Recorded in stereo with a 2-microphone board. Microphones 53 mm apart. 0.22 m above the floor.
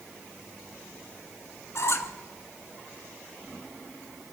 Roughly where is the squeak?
Left.